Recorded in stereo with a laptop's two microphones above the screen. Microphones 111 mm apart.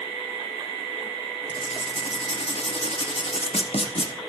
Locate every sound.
1.5 s writing: 65° left (ahead or behind), 0.9 m